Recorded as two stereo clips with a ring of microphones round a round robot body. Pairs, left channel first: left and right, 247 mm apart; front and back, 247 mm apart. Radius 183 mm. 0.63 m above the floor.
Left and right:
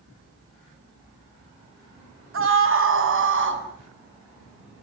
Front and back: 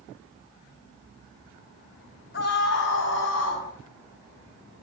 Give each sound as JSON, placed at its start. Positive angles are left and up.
{"t": 2.3, "sound": "a scream", "azimuth_deg": -60, "distance_m": 6.5}